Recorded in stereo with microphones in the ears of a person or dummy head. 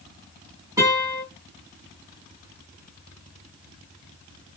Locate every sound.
0.8 s a guitar: 15° right (ahead or behind), 1.7 m